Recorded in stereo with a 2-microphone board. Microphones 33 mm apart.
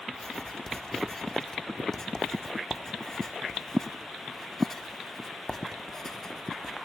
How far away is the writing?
About 1.0 m.